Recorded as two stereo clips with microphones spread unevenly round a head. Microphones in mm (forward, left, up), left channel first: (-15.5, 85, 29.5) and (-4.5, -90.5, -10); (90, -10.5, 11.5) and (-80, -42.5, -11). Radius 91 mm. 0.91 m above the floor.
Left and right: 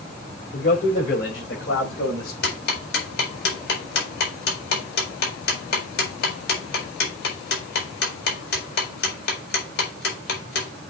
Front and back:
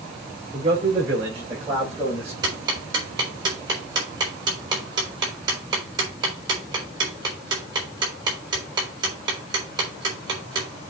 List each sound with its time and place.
0.5 s a man speaking: 130° left, 4 m
2.4 s ticking: 125° left, 4 m